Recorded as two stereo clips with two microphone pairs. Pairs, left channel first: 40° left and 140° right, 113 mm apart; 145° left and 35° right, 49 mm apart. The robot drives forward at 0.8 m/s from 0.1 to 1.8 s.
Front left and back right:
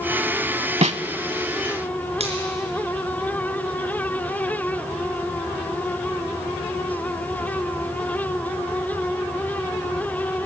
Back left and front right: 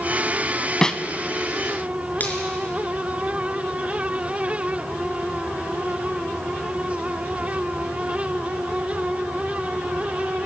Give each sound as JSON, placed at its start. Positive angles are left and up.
{"t": 0.8, "sound": "a snare drum", "azimuth_deg": -140, "distance_m": 0.7}
{"t": 2.2, "sound": "a finger snap", "azimuth_deg": -160, "distance_m": 4.0}